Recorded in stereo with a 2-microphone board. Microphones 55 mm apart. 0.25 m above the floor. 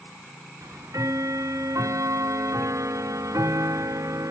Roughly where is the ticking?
Right.